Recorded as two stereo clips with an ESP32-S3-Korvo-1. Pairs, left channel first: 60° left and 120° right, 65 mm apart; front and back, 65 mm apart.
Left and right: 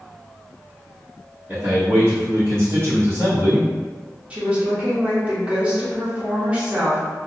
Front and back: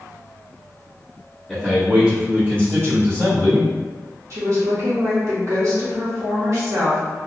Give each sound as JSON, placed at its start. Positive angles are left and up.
{"t": 1.5, "sound": "a man speaking", "azimuth_deg": -90, "distance_m": 1.4}
{"t": 4.3, "sound": "a woman speaking", "azimuth_deg": 175, "distance_m": 1.1}